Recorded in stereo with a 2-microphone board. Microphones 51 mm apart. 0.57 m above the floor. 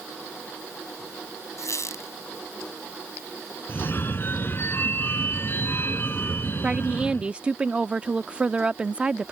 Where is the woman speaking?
20° right (ahead or behind).